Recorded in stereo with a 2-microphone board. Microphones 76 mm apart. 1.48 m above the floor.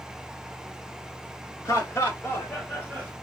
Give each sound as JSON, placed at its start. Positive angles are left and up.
{"t": 1.6, "sound": "laughter", "side_deg": 40, "distance_m": 1.7}